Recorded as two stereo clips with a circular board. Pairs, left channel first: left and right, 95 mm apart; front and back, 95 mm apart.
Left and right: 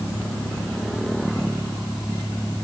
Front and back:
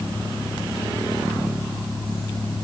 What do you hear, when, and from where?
Only background noise.